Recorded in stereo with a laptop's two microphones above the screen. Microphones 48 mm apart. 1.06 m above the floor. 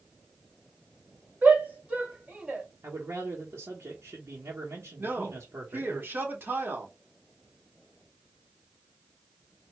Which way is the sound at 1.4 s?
35° right (ahead or behind).